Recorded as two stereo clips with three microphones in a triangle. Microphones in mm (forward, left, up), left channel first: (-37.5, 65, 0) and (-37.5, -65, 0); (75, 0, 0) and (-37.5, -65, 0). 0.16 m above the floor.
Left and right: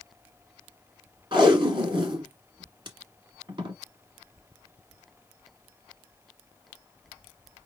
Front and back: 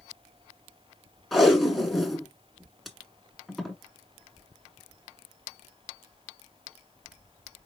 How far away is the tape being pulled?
About 1.5 m.